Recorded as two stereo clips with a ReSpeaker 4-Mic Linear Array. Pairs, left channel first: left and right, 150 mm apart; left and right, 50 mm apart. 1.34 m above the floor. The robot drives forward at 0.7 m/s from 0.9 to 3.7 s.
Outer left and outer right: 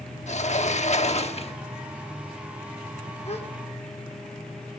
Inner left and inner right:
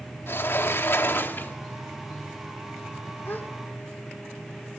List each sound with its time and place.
0.3 s a sliding door: 50° left (ahead or behind), 1.1 m; by 1.6 s 40° left (ahead or behind), 1.3 m
3.2 s a gasp: 45° left (ahead or behind), 1.6 m; by 3.5 s 40° left (ahead or behind), 1.7 m